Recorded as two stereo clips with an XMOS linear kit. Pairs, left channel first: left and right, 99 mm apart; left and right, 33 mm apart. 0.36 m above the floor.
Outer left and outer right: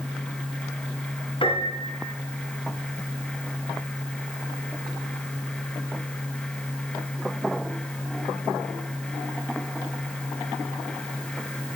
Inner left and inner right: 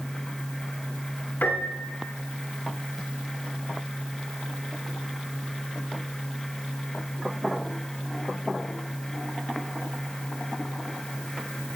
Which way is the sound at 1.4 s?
65° left (ahead or behind).